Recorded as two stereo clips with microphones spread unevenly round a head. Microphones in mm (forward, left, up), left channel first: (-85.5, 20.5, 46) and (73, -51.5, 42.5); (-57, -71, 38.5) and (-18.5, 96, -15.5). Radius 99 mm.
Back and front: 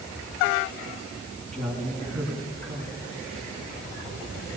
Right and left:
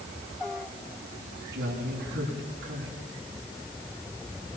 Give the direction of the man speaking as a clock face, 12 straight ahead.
11 o'clock.